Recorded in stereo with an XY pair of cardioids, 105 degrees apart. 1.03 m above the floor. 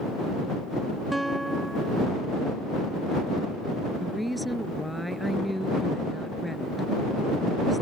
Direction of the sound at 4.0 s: Straight ahead.